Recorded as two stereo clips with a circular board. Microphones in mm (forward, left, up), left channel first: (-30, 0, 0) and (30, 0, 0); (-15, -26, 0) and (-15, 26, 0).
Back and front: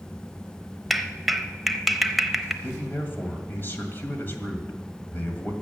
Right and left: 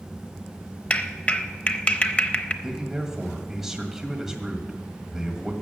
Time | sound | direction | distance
0.9 | a clap | 90° right | 0.7 m
2.6 | a man speaking | 170° left | 1.8 m